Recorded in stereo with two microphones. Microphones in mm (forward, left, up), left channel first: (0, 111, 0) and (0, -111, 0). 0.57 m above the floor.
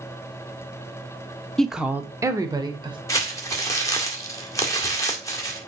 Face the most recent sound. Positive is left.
turn(degrees=15)  # may be behind; listen again after turning